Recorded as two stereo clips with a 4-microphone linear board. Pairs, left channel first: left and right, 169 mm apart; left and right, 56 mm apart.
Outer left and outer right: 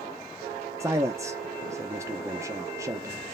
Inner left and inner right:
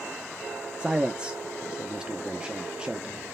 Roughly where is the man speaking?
Centre.